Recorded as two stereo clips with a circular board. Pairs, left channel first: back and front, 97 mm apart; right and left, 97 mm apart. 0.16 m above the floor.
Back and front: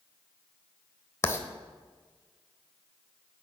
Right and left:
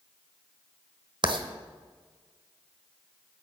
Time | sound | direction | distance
1.2 | writing | 120° left | 1.0 m